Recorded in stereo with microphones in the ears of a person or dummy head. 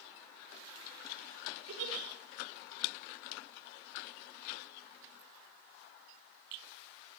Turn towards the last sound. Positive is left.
turn(degrees=-80)